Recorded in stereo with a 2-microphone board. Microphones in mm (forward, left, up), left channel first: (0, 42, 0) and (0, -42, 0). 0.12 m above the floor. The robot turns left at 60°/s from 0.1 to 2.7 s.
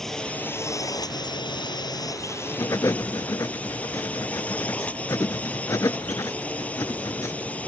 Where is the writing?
45° left (ahead or behind); by 7.4 s 40° left (ahead or behind).